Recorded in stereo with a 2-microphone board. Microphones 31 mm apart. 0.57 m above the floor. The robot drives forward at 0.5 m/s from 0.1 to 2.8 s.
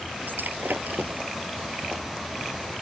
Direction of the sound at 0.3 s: 75° right (ahead or behind).